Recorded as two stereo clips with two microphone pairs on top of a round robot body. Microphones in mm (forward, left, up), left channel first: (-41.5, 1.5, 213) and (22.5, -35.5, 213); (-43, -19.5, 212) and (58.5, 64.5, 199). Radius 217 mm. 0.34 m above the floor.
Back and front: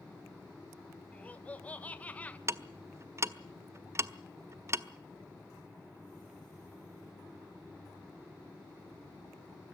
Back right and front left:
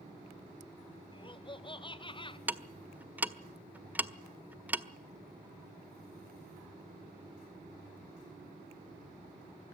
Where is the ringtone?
No ringtone in this recording.